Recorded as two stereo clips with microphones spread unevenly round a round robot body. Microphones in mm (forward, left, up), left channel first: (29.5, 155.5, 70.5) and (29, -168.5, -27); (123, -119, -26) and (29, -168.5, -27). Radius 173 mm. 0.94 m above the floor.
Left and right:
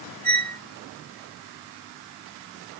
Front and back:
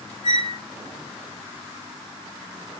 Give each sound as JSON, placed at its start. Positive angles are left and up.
{"t": 0.2, "sound": "a squeak", "azimuth_deg": 5, "distance_m": 3.0}